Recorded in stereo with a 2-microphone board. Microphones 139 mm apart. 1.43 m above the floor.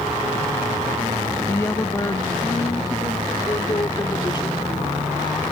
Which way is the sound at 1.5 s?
15° left (ahead or behind).